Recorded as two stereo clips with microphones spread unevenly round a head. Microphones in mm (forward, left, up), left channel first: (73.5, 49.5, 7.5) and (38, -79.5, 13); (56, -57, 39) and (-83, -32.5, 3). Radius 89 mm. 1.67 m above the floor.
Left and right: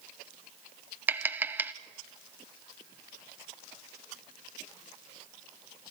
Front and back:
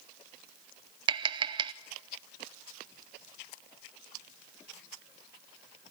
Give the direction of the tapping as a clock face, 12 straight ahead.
5 o'clock.